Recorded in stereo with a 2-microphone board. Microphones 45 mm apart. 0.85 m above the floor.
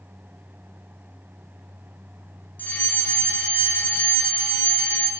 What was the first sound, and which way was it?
A fire alarm, 35° left (ahead or behind).